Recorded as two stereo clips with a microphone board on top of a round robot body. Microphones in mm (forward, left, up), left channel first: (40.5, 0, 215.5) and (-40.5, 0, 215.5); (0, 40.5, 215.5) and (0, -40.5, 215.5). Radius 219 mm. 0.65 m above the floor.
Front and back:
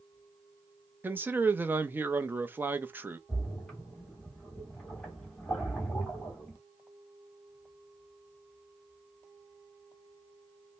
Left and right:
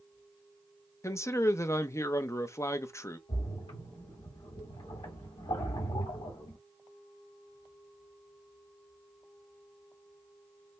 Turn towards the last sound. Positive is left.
turn(degrees=85)